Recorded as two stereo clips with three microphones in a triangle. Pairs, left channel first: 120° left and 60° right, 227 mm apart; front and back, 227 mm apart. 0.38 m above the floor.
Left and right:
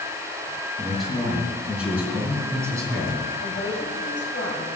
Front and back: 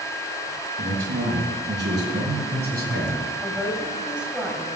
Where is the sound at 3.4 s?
95° left, 2.5 m.